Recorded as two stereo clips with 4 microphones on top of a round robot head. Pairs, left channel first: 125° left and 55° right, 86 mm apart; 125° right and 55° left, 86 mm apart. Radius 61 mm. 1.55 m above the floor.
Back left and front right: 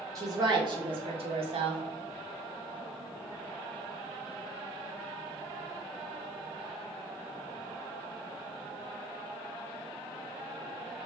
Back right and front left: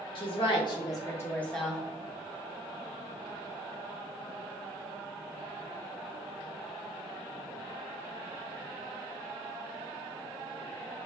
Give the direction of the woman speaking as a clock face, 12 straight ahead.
3 o'clock.